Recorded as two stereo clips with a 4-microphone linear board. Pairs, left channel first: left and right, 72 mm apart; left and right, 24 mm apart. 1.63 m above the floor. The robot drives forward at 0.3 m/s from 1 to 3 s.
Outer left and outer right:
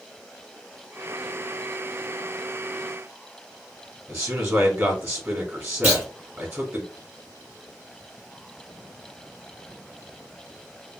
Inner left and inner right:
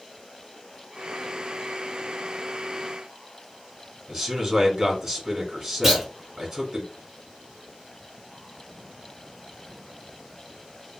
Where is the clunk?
30° right (ahead or behind), 1.9 m.